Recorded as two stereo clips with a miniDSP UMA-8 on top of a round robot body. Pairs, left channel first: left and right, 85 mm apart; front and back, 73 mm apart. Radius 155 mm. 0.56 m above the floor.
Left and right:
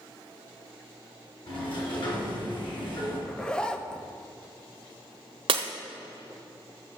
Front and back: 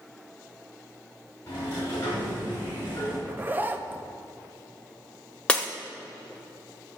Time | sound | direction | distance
1.5 | a sliding door | 65° left | 3.5 m
3.3 | a zipper | 155° left | 0.9 m
5.5 | breaking glass | 80° right | 0.7 m